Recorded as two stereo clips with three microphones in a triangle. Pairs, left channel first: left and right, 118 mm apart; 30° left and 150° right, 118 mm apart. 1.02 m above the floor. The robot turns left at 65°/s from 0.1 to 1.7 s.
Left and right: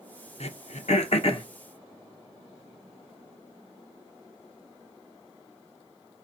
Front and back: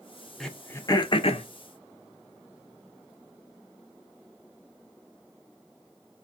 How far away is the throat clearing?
About 0.6 m.